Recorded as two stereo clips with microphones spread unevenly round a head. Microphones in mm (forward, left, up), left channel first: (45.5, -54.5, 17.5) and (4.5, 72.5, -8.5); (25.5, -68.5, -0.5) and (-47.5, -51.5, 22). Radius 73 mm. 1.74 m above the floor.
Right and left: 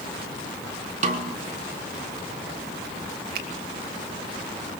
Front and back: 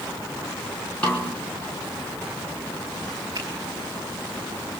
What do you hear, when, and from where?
1.0 s a snare drum: 70° left, 3.5 m
3.4 s a finger snap: 95° left, 3 m